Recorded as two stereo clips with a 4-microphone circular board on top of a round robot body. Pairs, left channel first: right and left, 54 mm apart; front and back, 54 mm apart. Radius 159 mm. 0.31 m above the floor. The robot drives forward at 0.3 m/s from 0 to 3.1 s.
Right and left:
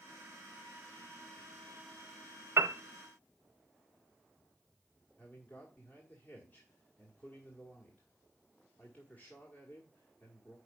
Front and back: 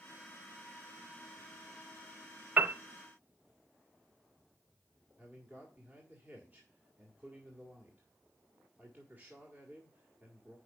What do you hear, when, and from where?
2.6 s a piano: 125° left, 0.6 m; by 2.8 s 130° left, 0.6 m
5.2 s a man speaking: 135° right, 2.0 m